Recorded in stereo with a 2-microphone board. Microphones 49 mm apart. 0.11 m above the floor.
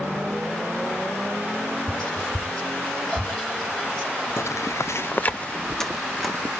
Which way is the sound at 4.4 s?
65° left (ahead or behind).